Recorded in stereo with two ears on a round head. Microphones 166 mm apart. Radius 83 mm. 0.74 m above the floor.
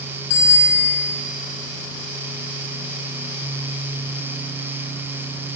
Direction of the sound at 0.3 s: 85° left.